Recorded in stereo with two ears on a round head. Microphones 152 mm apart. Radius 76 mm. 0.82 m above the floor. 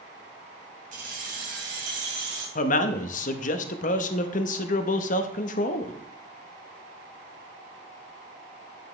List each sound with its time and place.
0.9 s keys jangling: 50° right (ahead or behind), 3.5 m; by 2.5 s 75° right (ahead or behind), 4 m
2.5 s a man speaking: 45° left (ahead or behind), 0.8 m